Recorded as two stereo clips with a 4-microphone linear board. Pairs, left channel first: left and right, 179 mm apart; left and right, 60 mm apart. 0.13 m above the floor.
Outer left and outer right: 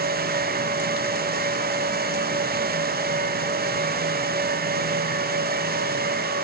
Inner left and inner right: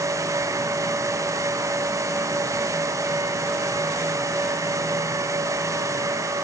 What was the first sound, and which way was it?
Only background noise.